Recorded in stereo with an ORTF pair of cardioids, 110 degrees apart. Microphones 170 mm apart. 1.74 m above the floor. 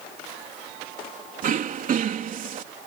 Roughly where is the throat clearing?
Ahead right.